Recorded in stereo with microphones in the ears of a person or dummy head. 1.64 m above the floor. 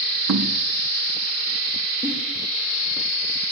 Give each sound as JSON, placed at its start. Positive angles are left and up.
{"t": 0.3, "sound": "knocking", "side_deg": -75, "distance_m": 3.0}
{"t": 2.0, "sound": "a giggle", "side_deg": -25, "distance_m": 6.0}